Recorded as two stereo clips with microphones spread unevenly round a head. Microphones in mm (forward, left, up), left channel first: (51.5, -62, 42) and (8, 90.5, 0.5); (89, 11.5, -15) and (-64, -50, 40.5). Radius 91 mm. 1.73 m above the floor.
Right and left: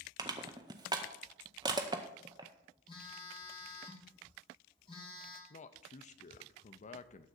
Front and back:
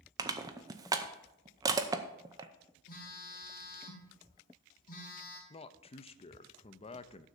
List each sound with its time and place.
0.2 s crushing: 175° right, 0.6 m
2.9 s a phone buzzing: 15° right, 2.5 m
5.5 s a man speaking: 40° right, 0.6 m